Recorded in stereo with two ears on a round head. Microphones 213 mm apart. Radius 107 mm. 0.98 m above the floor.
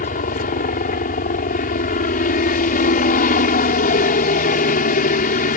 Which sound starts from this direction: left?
A helicopter, at 0.0 s.